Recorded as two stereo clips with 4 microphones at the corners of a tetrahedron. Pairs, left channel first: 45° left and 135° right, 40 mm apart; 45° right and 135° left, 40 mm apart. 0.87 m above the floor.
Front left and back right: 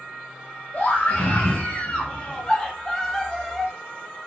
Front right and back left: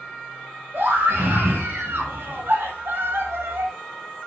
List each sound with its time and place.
0.7 s a scream: 105° left, 4.5 m; by 3.7 s 140° left, 1.9 m